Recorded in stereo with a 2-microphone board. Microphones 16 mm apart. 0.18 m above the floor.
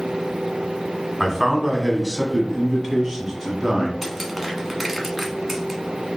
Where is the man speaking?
10° right (ahead or behind), 1.2 m; by 3.9 s 25° right (ahead or behind), 1.6 m.